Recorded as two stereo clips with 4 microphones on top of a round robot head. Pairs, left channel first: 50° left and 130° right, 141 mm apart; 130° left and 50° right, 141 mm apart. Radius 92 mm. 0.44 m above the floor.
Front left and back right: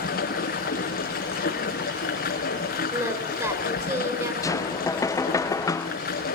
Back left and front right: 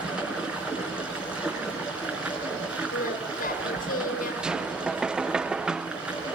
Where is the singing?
160° left, 3.5 m.